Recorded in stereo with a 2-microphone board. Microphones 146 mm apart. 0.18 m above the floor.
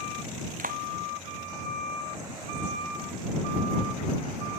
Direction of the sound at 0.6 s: 75° right (ahead or behind).